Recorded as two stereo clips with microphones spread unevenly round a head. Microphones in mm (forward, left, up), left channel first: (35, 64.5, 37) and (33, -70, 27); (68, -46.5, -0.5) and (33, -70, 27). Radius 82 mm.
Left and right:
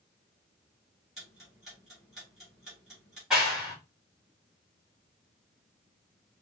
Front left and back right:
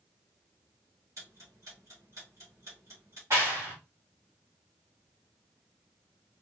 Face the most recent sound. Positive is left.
turn(degrees=180)